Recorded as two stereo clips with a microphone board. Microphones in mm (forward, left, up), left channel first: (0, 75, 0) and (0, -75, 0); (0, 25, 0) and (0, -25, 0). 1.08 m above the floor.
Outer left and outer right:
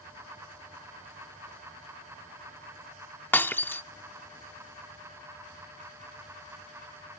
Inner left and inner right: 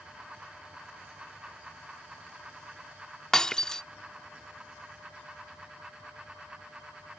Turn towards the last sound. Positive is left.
turn(degrees=15)  # may be behind; listen again after turning